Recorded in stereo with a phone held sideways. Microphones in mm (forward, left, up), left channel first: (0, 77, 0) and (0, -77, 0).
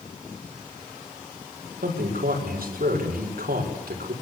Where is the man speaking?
80° right, 6 m.